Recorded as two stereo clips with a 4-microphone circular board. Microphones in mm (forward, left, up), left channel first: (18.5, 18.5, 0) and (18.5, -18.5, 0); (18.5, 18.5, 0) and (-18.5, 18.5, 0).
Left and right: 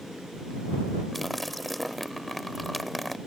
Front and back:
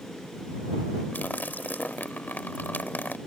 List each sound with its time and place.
1.1 s a splash: straight ahead